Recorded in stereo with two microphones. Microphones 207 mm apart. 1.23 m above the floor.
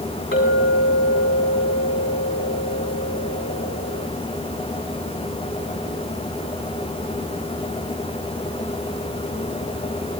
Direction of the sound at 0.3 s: 80° left.